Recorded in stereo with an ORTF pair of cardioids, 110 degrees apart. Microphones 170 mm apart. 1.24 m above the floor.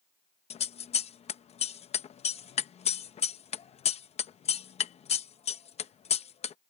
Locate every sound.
0.5 s scissors: 40° left